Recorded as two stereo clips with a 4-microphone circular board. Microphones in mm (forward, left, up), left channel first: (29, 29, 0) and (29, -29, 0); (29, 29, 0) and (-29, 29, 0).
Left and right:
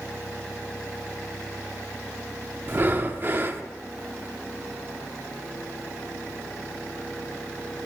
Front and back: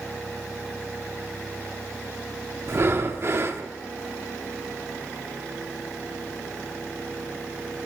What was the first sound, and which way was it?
Breathing, 140° right.